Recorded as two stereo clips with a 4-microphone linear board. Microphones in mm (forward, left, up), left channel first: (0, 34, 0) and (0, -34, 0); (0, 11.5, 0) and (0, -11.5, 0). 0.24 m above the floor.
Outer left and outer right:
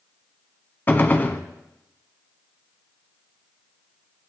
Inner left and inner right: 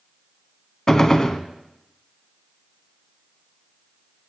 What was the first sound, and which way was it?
A gunshot, 30° left (ahead or behind).